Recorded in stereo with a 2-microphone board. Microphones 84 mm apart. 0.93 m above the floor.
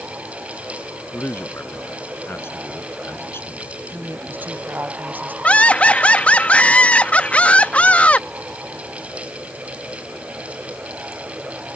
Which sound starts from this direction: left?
A man speaking, at 1.1 s.